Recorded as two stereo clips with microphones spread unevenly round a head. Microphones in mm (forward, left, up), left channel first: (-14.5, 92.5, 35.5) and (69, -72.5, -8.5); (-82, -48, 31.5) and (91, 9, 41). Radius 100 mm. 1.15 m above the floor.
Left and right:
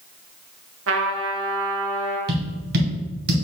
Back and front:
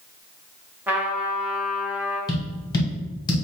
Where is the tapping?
95° right, 1.3 m.